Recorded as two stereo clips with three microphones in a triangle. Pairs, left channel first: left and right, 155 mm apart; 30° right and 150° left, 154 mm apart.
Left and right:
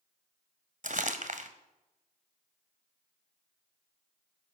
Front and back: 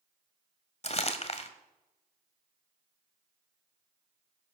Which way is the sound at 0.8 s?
70° right.